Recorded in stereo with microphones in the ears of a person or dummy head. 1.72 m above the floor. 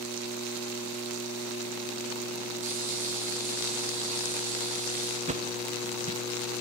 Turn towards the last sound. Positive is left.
turn(degrees=-35)  # may be behind; listen again after turning